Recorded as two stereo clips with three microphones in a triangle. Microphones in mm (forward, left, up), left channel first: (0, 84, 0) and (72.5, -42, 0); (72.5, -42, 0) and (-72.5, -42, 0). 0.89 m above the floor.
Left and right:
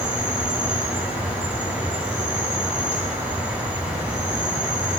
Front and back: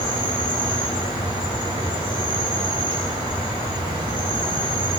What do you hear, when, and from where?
0.0 s an insect: 135° right, 1.9 m